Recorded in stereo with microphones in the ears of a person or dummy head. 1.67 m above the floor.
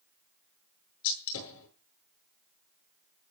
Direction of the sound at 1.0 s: 80° left.